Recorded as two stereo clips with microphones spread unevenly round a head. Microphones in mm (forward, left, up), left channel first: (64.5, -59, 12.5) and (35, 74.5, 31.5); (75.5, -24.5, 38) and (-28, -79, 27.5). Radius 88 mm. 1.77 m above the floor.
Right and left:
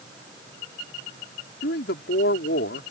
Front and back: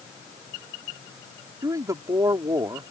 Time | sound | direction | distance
1.6 | a man speaking | 90° right | ?